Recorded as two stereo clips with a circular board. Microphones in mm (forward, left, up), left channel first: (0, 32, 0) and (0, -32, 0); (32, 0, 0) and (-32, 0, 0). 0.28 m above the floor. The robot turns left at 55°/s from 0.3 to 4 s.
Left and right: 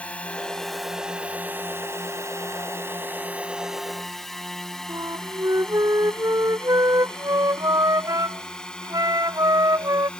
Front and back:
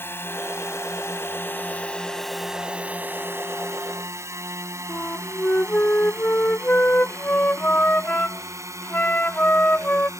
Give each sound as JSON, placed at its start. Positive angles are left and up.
{"t": 0.0, "sound": "a drone", "azimuth_deg": 30}
{"t": 4.9, "sound": "a flute", "azimuth_deg": -65}